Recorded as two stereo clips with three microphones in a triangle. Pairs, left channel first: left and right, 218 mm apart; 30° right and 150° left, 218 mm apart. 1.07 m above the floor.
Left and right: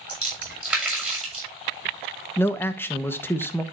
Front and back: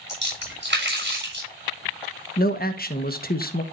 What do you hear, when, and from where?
0.1 s a splash: 175° right, 6.5 m
2.4 s a man speaking: 10° left, 1.3 m